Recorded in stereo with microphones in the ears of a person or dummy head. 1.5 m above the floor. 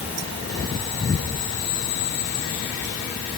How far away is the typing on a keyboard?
No typing on a keyboard in this recording.